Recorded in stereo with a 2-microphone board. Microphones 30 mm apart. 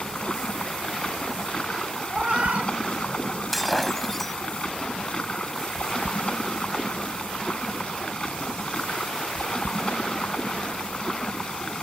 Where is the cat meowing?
45° right (ahead or behind).